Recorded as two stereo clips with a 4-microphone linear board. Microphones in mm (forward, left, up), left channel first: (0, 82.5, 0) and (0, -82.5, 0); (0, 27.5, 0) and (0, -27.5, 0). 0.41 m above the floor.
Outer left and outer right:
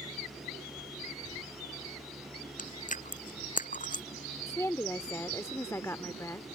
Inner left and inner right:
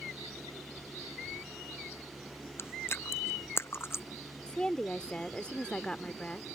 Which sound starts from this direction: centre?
A woman speaking, at 4.5 s.